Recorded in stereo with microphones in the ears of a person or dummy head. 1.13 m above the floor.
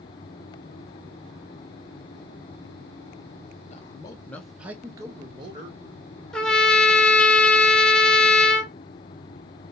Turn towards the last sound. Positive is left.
turn(degrees=5)  # may be behind; listen again after turning